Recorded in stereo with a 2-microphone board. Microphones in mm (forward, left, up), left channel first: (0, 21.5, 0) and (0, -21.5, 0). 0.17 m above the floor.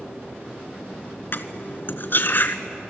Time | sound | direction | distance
1.3 | cutlery clinking | 55° left (ahead or behind) | 1.2 m